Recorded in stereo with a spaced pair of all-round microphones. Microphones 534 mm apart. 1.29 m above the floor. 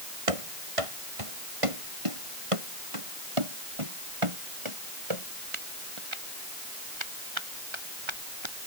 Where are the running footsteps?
80° right; by 8.5 s 55° right (ahead or behind).